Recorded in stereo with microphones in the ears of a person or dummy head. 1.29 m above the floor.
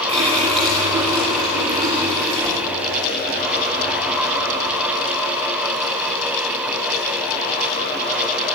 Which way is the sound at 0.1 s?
30° right (ahead or behind).